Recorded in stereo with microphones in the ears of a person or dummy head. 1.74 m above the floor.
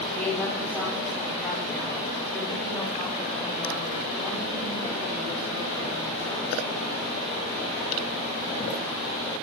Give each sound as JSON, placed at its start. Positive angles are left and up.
{"t": 0.1, "sound": "a woman speaking", "side_deg": 15, "distance_m": 6.5}